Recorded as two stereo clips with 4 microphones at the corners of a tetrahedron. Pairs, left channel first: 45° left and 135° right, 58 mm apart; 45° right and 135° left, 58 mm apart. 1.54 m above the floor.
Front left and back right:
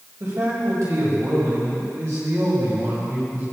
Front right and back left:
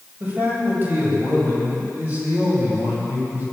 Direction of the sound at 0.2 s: 170° right.